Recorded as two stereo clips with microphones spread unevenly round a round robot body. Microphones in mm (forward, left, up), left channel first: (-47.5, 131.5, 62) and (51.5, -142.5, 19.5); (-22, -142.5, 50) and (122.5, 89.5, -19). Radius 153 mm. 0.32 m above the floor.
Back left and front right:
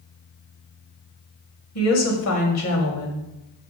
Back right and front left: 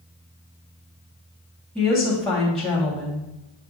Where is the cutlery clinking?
No cutlery clinking in this recording.